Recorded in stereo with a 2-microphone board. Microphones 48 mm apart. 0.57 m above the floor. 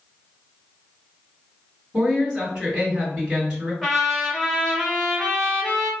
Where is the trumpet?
Centre (ahead or behind), 1.5 m.